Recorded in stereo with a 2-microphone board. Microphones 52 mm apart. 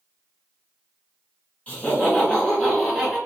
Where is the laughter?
25° left (ahead or behind), 1.4 m; by 3.2 s 10° left (ahead or behind), 1.5 m.